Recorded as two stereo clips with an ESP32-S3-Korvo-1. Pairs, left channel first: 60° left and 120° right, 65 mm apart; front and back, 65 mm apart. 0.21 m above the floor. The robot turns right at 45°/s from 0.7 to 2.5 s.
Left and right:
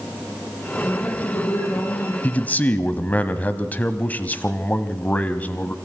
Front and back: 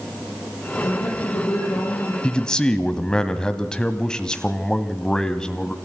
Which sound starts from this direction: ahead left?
A man speaking, at 2.2 s.